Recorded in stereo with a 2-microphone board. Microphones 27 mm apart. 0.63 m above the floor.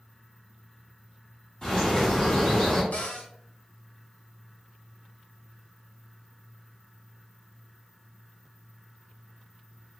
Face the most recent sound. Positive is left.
turn(degrees=70)  # may be behind; listen again after turning